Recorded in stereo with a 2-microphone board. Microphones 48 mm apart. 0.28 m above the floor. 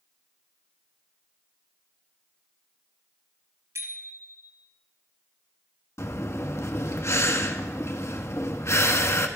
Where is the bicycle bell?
75° right (ahead or behind), 3 m.